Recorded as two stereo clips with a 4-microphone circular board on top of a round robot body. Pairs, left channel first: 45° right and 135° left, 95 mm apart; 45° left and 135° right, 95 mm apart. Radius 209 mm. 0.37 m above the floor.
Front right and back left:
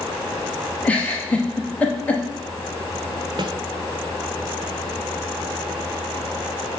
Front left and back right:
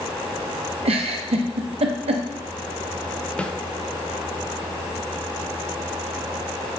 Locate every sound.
0.8 s a giggle: 120° right, 0.6 m
3.4 s a snare drum: 120° left, 0.8 m